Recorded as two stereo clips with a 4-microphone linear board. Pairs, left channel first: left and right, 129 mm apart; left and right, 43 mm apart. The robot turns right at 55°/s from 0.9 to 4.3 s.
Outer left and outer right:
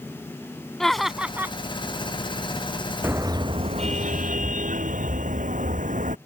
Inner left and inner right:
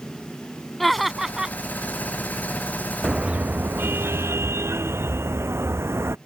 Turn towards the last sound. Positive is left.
turn(degrees=-95)